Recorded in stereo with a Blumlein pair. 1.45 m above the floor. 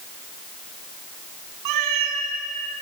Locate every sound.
1.6 s a cat meowing: 45° right, 4 m